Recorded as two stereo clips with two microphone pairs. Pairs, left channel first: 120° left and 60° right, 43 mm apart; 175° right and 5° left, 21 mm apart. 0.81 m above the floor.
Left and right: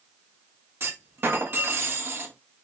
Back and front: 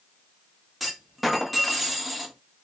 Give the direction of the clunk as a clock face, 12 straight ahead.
3 o'clock.